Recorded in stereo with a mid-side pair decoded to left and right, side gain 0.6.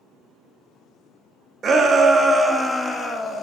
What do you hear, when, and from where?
1.6 s a shout: 35° right, 1.3 m; by 3.4 s 30° left, 1.4 m